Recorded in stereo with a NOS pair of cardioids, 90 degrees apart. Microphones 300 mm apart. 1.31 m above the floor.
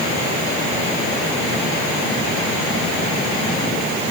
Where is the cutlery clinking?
No cutlery clinking in this recording.